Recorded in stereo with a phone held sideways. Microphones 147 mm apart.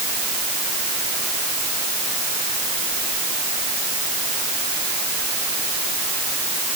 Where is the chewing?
No chewing in this recording.